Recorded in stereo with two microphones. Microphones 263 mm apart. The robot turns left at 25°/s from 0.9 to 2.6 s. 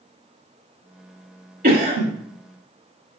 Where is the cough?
35° right (ahead or behind), 1.2 m.